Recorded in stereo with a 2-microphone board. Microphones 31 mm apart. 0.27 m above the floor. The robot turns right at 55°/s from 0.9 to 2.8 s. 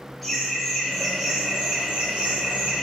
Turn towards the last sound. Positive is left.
turn(degrees=-80)